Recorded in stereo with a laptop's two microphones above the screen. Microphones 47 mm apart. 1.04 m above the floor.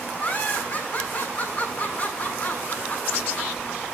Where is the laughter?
30° left (ahead or behind), 8 m.